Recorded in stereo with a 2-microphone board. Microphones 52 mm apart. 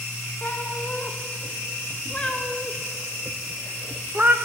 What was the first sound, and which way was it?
A cat meowing, 40° left (ahead or behind).